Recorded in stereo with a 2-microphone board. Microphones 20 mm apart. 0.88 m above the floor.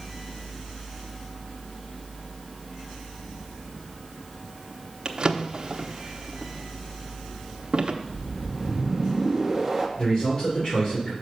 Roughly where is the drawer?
Right.